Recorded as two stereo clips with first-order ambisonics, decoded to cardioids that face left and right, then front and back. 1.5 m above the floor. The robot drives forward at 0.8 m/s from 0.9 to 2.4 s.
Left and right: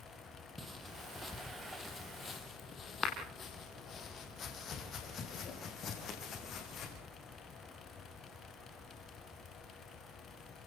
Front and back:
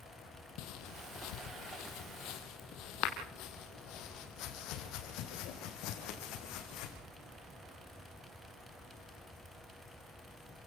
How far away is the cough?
I don't hear a cough.